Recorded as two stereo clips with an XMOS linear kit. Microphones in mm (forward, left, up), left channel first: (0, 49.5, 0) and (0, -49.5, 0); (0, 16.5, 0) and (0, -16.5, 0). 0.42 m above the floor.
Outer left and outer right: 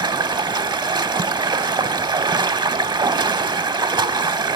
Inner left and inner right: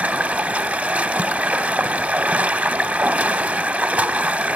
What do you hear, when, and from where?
0.0 s running water: 55° right (ahead or behind), 0.9 m